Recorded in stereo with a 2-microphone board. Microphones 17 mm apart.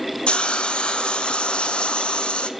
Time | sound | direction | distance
0.3 | a hiss | 75° left (ahead or behind) | 1.2 m